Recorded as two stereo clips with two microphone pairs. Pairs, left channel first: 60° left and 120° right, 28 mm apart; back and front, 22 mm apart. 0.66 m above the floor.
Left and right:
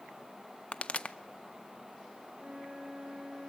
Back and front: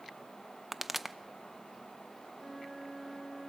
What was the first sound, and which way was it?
A pop, 85° left.